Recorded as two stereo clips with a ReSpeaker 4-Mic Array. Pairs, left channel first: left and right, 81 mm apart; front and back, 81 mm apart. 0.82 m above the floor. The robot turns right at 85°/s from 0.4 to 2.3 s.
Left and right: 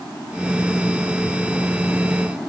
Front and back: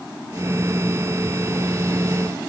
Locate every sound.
Only background noise.